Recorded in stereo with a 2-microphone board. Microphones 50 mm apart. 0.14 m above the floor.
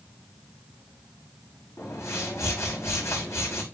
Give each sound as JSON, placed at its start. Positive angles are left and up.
{"t": 1.8, "sound": "a whoosh", "side_deg": 85, "distance_m": 5.0}